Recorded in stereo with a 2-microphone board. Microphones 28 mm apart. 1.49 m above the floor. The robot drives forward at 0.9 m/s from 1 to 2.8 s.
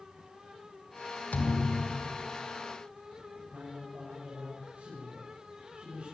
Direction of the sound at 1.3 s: 60° left (ahead or behind).